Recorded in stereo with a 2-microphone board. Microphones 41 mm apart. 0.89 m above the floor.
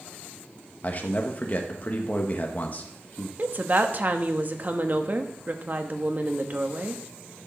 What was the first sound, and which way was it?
A man speaking, 40° left (ahead or behind).